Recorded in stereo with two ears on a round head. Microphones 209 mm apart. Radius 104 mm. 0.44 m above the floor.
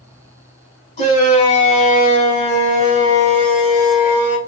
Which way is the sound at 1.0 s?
30° left (ahead or behind).